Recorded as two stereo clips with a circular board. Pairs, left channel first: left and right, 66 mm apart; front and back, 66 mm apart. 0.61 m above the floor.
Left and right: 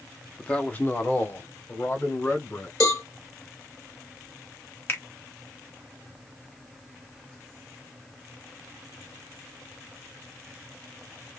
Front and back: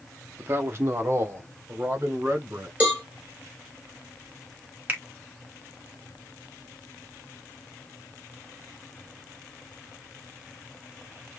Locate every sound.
0.4 s a man speaking: 155° left, 0.8 m; by 2.7 s 135° left, 2.5 m
2.8 s a cowbell: 115° left, 2.5 m
4.9 s a finger snap: 130° left, 1.1 m